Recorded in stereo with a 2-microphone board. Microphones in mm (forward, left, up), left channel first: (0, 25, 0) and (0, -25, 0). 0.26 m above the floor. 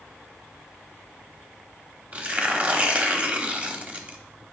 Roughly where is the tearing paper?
Right.